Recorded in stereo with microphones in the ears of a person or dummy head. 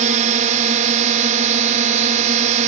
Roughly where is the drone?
Right.